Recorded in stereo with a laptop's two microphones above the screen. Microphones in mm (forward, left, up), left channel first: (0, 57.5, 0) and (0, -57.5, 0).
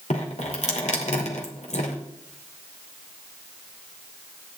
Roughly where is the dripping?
Left.